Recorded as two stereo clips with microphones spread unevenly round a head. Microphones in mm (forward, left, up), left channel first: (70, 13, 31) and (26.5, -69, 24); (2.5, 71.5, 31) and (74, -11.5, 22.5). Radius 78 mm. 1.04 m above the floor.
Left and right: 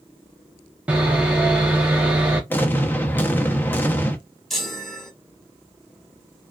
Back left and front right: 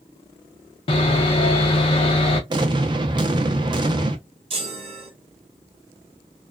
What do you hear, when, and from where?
0.9 s sawing: 170° left, 0.6 m
2.5 s an explosion: 5° right, 0.6 m
4.5 s a chime: 20° right, 1.3 m